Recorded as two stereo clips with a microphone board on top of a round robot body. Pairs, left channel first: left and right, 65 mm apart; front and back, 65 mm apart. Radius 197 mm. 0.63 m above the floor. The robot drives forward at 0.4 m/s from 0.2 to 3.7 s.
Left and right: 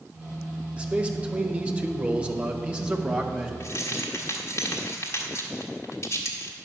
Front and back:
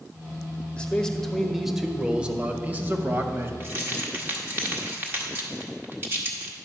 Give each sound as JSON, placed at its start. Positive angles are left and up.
{"t": 0.8, "sound": "a man speaking", "azimuth_deg": -50, "distance_m": 1.2}
{"t": 3.6, "sound": "keys jangling", "azimuth_deg": 125, "distance_m": 1.4}